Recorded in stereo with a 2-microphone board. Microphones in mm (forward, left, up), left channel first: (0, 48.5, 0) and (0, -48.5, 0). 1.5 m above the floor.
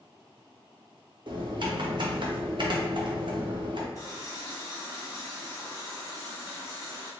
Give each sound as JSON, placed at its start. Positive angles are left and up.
{"t": 1.3, "sound": "typing on a keyboard", "side_deg": -55, "distance_m": 0.6}
{"t": 4.0, "sound": "a running tap", "side_deg": 35, "distance_m": 0.8}